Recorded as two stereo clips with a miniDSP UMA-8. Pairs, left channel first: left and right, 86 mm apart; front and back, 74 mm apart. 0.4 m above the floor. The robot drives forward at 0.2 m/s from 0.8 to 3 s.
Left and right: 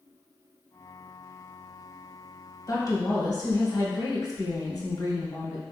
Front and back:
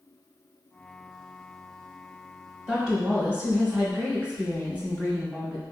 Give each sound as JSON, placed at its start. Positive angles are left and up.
{"t": 2.7, "sound": "a woman speaking", "azimuth_deg": 110, "distance_m": 1.1}